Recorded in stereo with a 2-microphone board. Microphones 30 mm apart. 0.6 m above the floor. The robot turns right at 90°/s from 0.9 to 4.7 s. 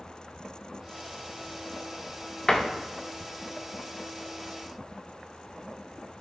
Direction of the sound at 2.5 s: 30° left (ahead or behind).